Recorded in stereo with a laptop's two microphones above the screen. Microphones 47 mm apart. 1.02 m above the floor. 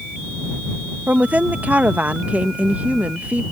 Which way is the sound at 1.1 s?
30° right (ahead or behind).